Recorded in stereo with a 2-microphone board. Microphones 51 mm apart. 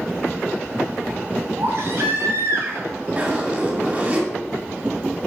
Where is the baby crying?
55° right (ahead or behind), 2.5 m.